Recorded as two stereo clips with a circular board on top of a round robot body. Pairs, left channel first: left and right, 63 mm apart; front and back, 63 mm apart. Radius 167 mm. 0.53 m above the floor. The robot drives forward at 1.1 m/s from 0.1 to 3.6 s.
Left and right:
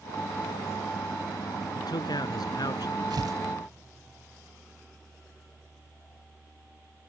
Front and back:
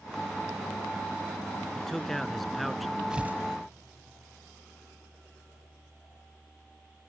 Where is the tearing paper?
100° right; by 3.4 s 120° right.